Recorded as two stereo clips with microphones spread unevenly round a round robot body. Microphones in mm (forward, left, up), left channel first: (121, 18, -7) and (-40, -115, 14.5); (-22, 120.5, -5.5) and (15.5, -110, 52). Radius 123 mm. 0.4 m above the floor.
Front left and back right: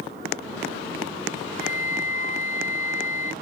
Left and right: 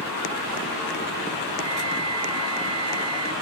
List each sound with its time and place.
1.6 s a flute: 10° right